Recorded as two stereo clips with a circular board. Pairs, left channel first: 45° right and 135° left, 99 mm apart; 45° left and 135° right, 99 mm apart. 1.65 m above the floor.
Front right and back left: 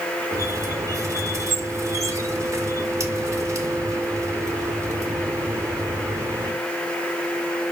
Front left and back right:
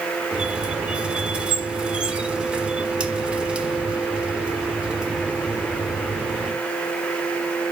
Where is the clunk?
I don't hear a clunk.